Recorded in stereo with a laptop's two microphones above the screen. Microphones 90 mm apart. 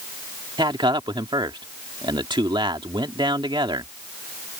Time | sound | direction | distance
0.6 | a man speaking | 60° right (ahead or behind) | ?